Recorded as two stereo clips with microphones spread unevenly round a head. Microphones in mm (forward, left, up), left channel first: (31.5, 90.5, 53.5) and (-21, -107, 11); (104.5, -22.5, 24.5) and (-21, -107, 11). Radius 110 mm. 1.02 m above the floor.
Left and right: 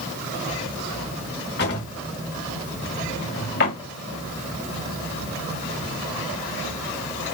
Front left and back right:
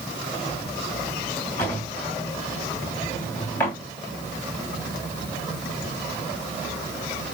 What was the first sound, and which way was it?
A drawer, 110° left.